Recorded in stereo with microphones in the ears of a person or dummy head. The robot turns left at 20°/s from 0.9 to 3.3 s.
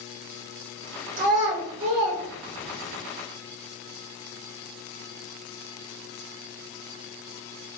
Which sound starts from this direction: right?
A child speaking, at 1.2 s.